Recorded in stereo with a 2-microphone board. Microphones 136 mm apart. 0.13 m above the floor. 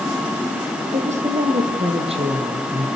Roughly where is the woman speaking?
Right.